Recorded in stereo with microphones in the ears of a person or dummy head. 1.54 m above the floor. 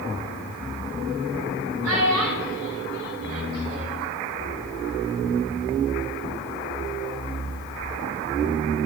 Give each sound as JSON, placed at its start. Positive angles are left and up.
{"t": 1.8, "sound": "a child speaking", "side_deg": -80, "distance_m": 5.0}